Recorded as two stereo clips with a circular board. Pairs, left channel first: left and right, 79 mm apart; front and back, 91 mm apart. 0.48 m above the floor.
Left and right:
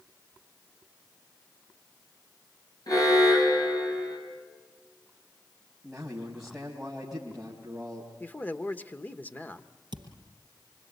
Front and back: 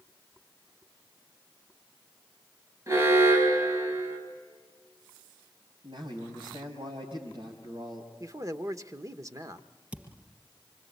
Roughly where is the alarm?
Behind left.